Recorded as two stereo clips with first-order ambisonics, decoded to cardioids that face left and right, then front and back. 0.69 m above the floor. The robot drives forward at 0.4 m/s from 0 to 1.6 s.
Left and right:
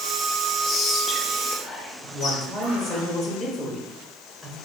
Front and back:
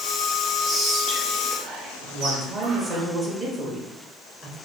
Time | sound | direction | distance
0.6 | whispering | 135° left | 0.6 m
2.0 | a woman speaking | 170° left | 0.9 m